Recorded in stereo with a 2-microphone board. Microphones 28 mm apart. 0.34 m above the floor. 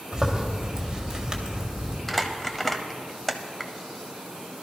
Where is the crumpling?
10° left (ahead or behind), 0.9 m.